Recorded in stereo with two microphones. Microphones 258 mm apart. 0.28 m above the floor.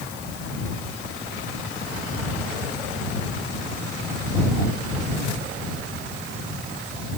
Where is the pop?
I don't hear a pop.